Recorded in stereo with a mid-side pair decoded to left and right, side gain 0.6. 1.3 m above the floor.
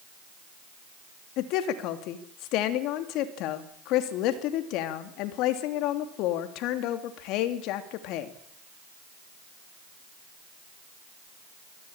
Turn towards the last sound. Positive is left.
turn(degrees=70)